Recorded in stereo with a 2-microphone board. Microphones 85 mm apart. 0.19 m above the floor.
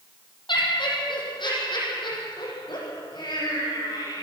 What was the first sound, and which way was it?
Laughter, 65° left (ahead or behind).